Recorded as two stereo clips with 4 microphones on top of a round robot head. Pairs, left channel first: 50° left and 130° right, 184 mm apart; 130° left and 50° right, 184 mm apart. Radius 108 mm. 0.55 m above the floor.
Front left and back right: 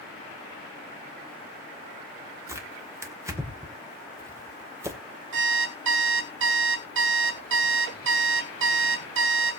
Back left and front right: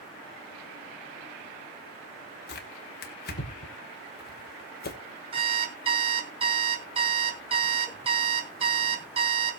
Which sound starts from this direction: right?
An alarm clock, at 5.3 s.